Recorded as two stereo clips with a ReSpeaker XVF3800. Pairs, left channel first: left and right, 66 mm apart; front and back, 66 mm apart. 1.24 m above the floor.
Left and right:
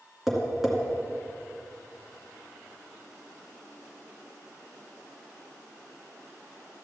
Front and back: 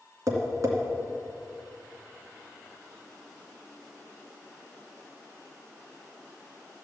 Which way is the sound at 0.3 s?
175° right.